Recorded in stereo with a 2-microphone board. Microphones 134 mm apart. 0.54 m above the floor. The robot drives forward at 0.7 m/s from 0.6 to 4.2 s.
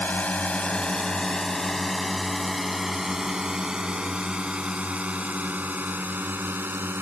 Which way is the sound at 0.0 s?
10° left (ahead or behind).